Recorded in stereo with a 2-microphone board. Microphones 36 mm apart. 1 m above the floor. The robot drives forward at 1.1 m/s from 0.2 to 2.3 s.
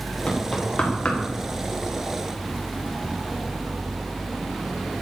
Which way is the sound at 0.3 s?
25° left (ahead or behind).